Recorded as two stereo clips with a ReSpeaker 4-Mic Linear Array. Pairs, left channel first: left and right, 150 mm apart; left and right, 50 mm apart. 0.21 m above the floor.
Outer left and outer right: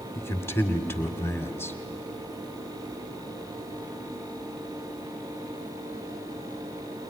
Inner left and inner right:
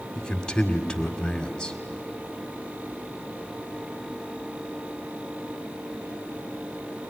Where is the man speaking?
15° left (ahead or behind), 1.8 m.